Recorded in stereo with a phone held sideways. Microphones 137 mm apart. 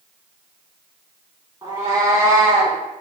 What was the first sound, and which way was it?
A cat meowing, 30° right (ahead or behind).